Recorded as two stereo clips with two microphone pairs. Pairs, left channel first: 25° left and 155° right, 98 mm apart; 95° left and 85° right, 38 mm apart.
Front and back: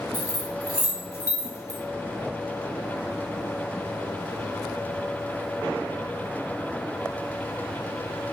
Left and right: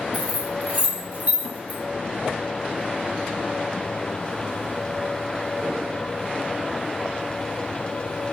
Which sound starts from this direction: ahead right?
Keys jangling, at 0.1 s.